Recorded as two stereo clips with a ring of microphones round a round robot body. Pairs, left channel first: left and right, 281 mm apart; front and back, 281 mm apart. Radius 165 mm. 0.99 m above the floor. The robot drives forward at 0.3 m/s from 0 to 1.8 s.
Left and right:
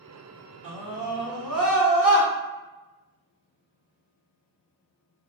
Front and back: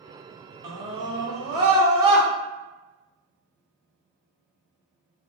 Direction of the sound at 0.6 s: 175° right.